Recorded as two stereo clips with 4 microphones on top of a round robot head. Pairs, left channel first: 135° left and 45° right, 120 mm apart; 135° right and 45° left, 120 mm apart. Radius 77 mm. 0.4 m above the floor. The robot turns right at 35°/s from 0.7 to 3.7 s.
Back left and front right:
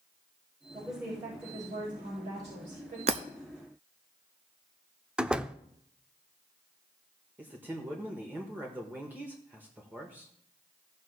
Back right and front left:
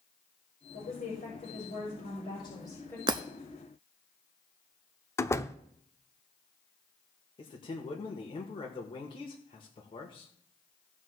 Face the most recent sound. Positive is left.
turn(degrees=-115)